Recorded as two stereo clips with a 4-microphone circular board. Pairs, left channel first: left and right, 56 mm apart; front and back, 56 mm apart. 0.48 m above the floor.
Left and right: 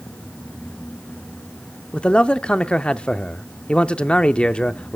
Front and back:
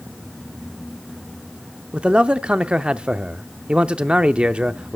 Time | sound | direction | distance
1.9 | a man speaking | 125° left | 0.7 m